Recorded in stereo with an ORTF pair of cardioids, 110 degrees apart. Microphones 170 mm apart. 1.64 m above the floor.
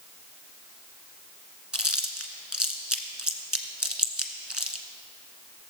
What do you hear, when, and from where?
1.7 s chewing: 5° right, 1.3 m